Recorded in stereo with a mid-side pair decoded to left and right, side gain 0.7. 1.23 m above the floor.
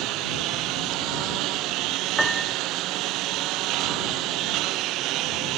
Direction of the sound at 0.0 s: 60° right.